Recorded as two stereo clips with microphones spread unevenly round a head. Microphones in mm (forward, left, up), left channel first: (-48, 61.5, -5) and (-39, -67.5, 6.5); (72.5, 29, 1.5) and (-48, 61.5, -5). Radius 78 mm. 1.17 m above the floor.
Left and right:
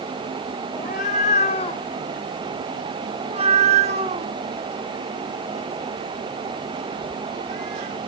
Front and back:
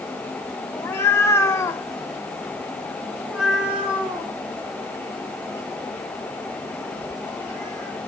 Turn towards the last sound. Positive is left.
turn(degrees=-120)